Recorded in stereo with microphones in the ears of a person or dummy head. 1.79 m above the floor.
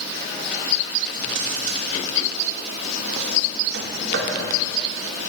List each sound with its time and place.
1.1 s a drawer: 75° right (ahead or behind), 3 m